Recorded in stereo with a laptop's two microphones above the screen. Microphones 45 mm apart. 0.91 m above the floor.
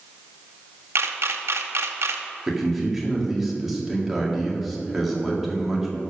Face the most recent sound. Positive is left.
turn(degrees=-5)  # may be behind; listen again after turning